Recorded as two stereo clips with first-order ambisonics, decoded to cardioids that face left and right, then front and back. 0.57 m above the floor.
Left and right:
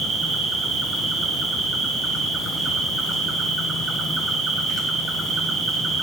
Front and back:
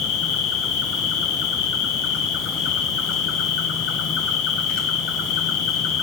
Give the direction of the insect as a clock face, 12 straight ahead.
1 o'clock.